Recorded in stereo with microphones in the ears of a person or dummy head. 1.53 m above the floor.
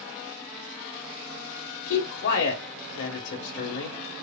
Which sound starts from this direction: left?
A man speaking, at 1.9 s.